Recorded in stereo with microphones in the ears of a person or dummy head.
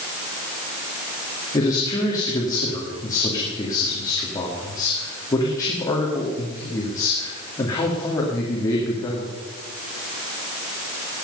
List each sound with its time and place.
1.5 s a man speaking: 20° left (ahead or behind), 2.5 m